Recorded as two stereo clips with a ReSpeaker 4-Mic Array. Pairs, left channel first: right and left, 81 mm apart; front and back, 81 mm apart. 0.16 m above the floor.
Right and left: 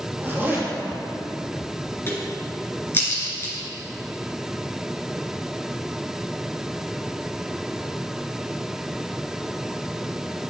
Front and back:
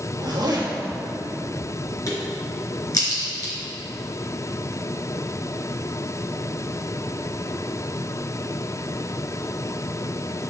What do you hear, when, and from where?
0.2 s a zipper: 150° left, 2.5 m
2.1 s a crack: 35° right, 3 m